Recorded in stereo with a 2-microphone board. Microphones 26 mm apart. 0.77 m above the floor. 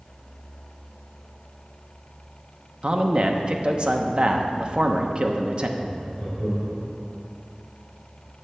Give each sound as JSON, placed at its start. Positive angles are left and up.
{"t": 2.8, "sound": "a man speaking", "side_deg": -40, "distance_m": 0.9}
{"t": 5.8, "sound": "laughter", "side_deg": 5, "distance_m": 3.0}